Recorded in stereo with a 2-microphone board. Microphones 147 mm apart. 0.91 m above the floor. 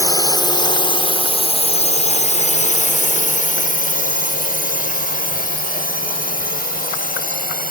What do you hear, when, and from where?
0.0 s a drone: 25° left (ahead or behind); by 7.7 s 75° left (ahead or behind)